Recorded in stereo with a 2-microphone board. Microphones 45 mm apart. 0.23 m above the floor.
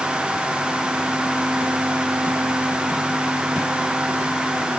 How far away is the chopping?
I don't hear chopping.